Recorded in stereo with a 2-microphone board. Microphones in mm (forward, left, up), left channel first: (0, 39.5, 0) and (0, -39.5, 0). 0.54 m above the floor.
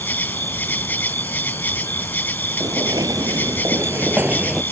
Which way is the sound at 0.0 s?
20° left (ahead or behind).